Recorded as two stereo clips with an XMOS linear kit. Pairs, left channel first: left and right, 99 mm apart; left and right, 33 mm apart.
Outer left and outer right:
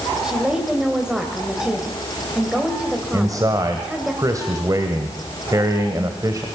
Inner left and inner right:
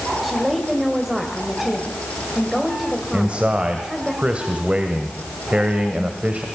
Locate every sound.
0.2 s a woman speaking: 5° right (ahead or behind), 2 m
3.1 s a man speaking: 40° right (ahead or behind), 1.7 m